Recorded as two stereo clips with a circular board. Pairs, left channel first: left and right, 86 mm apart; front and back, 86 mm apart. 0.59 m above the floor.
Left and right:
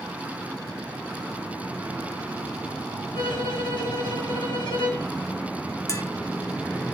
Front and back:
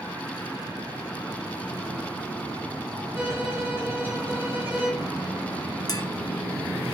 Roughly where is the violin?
Behind left.